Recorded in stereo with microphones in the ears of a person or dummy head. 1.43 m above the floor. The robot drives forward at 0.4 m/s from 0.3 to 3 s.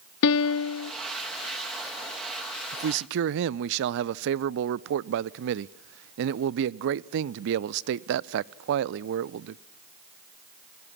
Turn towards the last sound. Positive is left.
turn(degrees=-65)  # may be behind; listen again after turning